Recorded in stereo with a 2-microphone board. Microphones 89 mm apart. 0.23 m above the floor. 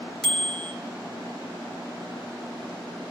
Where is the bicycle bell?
5° right (ahead or behind), 3 m.